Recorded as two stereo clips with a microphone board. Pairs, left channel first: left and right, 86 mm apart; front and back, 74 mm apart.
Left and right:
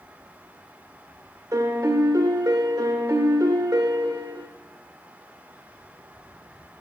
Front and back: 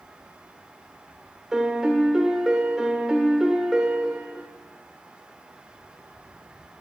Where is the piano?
100° right, 1.2 m.